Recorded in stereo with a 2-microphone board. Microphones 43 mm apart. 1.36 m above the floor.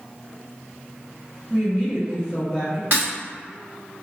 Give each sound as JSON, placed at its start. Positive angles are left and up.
{"t": 1.5, "sound": "a woman speaking", "side_deg": -45, "distance_m": 1.2}
{"t": 2.9, "sound": "breaking glass", "side_deg": -55, "distance_m": 1.2}